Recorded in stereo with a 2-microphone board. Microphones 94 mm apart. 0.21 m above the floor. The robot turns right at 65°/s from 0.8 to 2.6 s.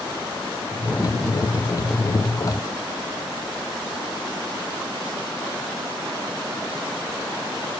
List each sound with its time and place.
Only background noise.